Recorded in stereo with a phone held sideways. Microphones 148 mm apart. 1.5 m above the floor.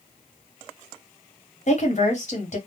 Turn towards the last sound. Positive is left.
turn(degrees=50)  # may be behind; listen again after turning